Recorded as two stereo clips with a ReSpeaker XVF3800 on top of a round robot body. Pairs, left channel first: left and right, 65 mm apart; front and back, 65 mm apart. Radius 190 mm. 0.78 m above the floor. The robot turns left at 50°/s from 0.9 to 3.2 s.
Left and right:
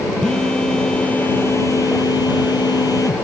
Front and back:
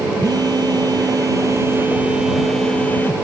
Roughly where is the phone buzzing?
Behind.